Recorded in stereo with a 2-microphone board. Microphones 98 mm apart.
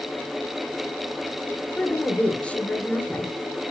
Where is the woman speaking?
15° left (ahead or behind), 2.5 m.